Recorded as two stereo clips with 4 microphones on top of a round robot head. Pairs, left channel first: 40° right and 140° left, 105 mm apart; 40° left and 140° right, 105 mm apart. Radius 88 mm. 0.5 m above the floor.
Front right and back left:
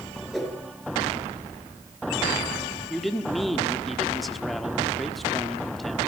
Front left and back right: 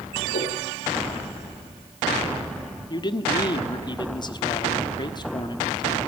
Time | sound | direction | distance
0.3 | a whoosh | 50° left | 4.5 m
2.9 | a man speaking | 50° left | 1.4 m